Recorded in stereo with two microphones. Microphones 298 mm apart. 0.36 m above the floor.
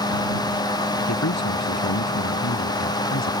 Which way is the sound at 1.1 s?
65° left (ahead or behind).